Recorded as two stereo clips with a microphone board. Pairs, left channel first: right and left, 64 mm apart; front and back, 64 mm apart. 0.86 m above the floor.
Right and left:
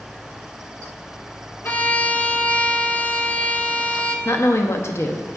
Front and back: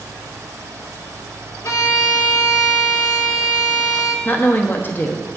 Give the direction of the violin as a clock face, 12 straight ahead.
1 o'clock.